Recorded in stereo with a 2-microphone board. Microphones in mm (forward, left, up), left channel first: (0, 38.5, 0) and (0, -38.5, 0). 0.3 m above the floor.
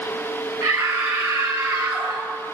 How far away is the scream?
About 5.5 m.